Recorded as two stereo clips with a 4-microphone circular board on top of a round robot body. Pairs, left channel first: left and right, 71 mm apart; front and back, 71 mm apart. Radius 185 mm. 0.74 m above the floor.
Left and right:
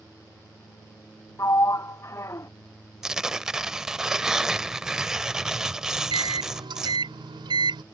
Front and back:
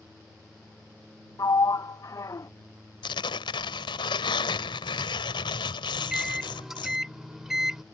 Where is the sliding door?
40° left.